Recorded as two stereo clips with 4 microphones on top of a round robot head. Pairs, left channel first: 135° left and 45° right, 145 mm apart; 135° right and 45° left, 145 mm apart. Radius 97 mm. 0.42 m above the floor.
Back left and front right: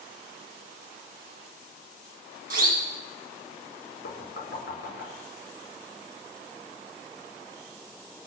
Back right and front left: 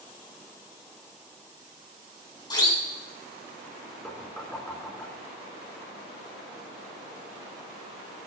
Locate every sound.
2.5 s a siren: 70° right, 4 m
4.0 s knocking: 145° left, 5 m